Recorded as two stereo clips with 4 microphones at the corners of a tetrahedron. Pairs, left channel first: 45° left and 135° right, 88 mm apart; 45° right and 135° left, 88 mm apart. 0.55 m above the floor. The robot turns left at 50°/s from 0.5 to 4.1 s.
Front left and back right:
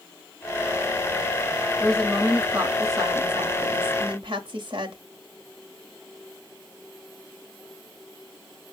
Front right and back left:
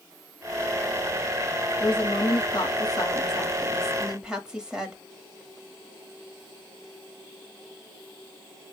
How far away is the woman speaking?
About 2 m.